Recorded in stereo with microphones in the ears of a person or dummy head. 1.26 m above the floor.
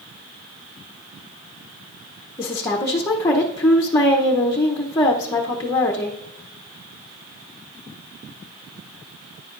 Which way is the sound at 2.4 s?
15° left (ahead or behind).